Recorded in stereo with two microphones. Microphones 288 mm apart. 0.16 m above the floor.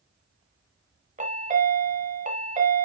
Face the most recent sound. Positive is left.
turn(degrees=-25)  # may be behind; listen again after turning